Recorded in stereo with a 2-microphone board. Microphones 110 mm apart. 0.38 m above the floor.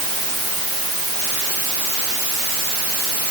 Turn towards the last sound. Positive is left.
No sound to turn to.